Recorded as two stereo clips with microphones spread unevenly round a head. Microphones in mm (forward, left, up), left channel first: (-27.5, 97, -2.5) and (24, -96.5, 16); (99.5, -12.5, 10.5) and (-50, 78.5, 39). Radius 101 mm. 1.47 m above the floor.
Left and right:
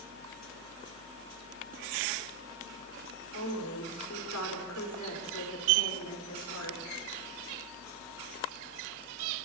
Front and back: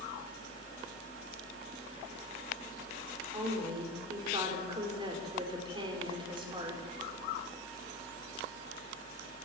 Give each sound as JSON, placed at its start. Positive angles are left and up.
{"t": 3.3, "sound": "a woman speaking", "azimuth_deg": 85, "distance_m": 5.0}